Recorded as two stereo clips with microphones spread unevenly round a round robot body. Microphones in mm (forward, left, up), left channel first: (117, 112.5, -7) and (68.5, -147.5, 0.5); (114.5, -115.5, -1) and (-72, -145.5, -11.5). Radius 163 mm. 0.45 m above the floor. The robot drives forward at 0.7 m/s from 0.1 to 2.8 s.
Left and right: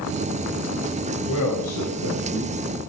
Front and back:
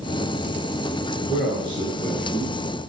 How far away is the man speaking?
About 3 m.